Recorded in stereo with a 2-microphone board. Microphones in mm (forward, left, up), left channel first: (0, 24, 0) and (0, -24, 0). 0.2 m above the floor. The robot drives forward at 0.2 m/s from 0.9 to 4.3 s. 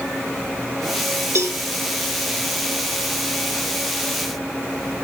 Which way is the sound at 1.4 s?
65° right (ahead or behind).